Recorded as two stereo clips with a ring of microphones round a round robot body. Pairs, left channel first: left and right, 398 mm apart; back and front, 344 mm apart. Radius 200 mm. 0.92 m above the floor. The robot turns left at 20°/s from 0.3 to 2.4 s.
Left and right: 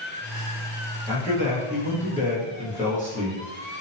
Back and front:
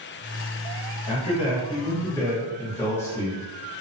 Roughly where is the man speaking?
Behind left.